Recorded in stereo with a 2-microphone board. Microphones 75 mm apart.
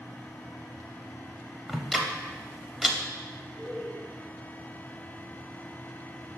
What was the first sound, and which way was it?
Ticking, 5° right (ahead or behind).